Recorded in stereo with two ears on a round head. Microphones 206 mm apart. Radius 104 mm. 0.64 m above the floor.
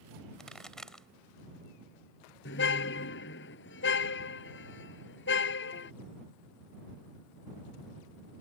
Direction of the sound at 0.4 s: 5° left (ahead or behind).